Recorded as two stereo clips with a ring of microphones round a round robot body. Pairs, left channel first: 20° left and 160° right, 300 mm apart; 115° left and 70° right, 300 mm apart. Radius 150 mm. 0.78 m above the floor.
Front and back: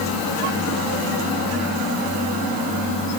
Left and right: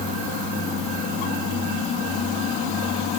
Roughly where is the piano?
No piano in this recording.